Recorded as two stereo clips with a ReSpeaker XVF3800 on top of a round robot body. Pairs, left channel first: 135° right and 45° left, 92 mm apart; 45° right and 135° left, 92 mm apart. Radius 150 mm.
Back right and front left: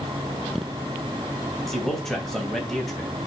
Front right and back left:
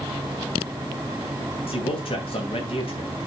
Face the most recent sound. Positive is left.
turn(degrees=-45)